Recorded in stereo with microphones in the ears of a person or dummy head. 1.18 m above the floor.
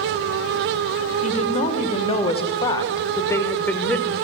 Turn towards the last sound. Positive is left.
turn(degrees=5)  # may be behind; listen again after turning